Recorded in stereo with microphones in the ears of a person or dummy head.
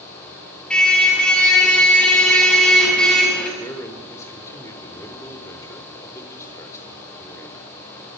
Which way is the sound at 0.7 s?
5° left (ahead or behind).